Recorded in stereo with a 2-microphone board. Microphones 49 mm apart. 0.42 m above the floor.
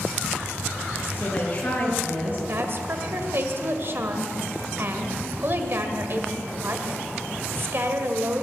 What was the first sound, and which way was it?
A woman speaking, 40° left (ahead or behind).